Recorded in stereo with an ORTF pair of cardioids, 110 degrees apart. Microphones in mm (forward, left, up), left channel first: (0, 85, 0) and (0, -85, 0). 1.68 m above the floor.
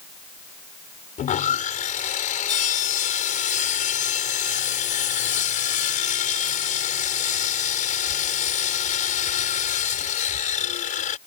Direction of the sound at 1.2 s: 50° left.